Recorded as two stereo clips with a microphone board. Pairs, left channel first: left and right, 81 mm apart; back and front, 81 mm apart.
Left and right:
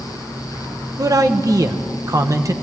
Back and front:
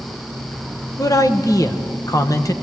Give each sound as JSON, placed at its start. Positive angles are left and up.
{"t": 1.0, "sound": "a man speaking", "azimuth_deg": -135, "distance_m": 1.1}